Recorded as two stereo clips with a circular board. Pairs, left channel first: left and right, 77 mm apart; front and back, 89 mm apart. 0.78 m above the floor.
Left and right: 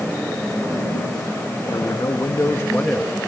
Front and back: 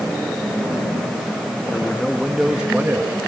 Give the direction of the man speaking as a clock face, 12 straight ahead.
10 o'clock.